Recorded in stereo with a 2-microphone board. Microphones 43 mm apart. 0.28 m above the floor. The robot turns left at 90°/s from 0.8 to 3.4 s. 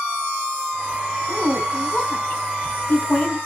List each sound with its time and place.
1.3 s a woman speaking: 20° right (ahead or behind), 2 m; by 3.4 s 15° left (ahead or behind), 2 m